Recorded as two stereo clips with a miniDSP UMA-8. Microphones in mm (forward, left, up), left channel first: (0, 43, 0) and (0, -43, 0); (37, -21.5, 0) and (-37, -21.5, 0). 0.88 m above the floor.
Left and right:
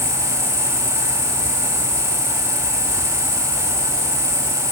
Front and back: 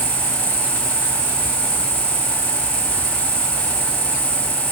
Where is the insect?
175° right, 1.9 m.